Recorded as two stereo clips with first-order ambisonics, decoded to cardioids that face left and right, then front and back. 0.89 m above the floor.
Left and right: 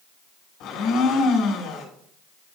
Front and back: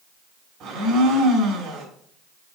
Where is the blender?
130° left, 4 m.